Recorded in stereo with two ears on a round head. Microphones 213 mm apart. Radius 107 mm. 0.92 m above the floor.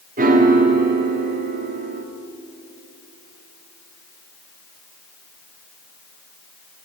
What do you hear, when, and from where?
0.2 s a piano: 35° right (ahead or behind), 1.2 m